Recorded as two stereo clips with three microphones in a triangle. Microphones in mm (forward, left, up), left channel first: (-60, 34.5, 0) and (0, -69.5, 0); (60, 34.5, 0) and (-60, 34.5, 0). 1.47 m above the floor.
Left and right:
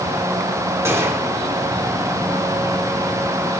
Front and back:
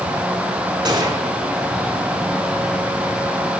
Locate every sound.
0.8 s a gunshot: 130° right, 3 m